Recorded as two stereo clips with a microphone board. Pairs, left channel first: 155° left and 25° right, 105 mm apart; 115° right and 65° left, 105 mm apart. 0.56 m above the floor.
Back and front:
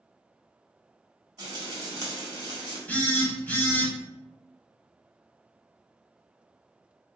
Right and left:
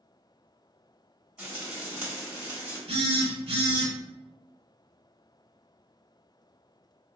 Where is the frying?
10° right, 1.2 m.